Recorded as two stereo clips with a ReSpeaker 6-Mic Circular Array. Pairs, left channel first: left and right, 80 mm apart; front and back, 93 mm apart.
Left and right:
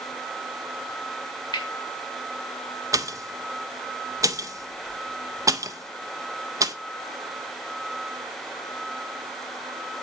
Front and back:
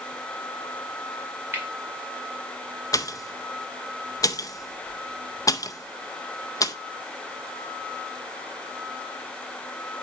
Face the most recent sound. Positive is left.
turn(degrees=-50)